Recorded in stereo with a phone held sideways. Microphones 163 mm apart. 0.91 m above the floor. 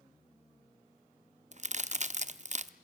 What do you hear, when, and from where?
1.5 s a crack: 50° right (ahead or behind), 0.6 m